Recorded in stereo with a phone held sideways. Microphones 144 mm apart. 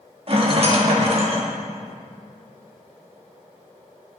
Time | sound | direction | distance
0.3 | a rattle | 45° right (ahead or behind) | 1.8 m